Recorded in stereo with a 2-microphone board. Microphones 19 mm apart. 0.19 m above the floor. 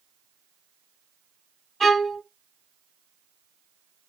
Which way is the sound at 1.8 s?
15° left (ahead or behind).